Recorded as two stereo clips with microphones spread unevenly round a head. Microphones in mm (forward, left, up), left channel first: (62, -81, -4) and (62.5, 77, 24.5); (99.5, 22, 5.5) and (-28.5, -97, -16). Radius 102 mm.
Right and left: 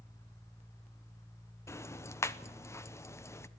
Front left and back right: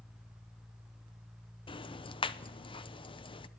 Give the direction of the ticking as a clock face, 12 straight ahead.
12 o'clock.